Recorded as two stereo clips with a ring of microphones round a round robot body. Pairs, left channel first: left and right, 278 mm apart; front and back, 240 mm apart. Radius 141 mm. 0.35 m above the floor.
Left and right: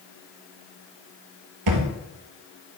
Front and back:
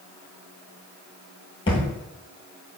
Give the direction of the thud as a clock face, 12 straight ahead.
2 o'clock.